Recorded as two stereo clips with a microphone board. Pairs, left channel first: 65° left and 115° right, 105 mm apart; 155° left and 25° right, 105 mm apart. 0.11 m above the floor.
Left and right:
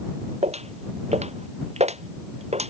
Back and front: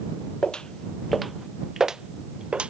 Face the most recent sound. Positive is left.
turn(degrees=-105)